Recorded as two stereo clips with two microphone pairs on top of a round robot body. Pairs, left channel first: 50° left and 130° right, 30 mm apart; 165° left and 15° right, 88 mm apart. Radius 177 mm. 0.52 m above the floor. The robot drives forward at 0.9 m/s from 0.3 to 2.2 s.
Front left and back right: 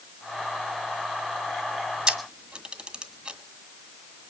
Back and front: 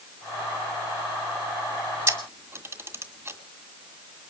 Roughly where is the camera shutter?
Right.